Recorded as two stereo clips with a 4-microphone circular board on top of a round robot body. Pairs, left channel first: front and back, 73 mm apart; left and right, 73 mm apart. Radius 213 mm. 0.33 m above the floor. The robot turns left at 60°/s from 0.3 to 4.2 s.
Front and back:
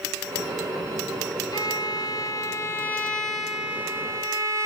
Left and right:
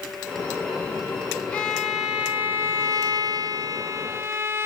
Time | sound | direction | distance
1.5 | a violin | 20° left | 0.8 m